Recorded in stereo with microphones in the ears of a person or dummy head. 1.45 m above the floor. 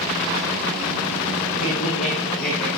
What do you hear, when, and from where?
1.6 s laughter: 85° left, 2 m; by 2.7 s 40° left (ahead or behind), 2 m